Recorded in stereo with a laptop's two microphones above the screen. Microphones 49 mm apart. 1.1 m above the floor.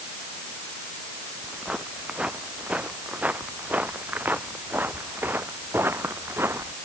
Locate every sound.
1.4 s footsteps: 20° right (ahead or behind); by 6.8 s 55° right (ahead or behind)